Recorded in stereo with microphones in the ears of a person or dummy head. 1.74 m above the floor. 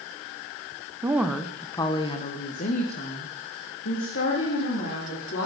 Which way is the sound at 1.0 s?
10° right (ahead or behind).